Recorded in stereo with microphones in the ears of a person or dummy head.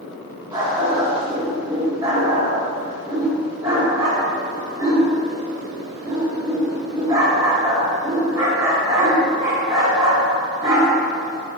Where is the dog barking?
20° right (ahead or behind), 1.5 m.